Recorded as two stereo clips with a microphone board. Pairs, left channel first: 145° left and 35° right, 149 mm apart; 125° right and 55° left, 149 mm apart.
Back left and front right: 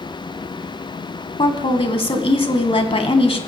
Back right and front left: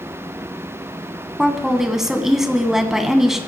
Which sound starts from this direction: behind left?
A woman speaking, at 1.4 s.